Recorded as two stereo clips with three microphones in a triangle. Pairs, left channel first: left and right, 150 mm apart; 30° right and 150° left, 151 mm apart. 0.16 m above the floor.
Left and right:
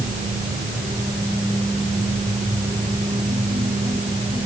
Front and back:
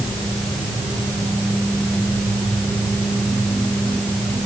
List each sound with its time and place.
Only background noise.